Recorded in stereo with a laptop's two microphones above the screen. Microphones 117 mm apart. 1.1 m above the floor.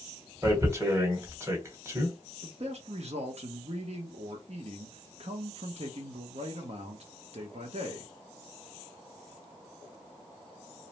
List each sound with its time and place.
0.4 s tearing paper: 25° right (ahead or behind), 1.2 m
2.4 s a man speaking: 65° right (ahead or behind), 0.8 m